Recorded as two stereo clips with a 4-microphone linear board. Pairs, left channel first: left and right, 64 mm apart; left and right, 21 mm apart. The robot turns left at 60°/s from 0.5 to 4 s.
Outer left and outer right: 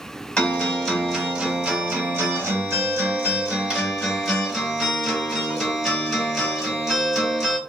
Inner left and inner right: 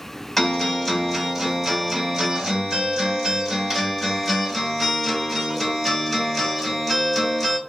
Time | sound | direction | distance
0.4 | a guitar | 35° left | 1.7 m